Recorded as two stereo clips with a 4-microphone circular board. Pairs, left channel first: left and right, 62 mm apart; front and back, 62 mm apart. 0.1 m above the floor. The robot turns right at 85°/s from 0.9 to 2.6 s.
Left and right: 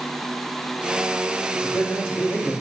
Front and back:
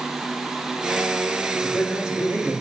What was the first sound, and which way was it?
A man speaking, 65° left.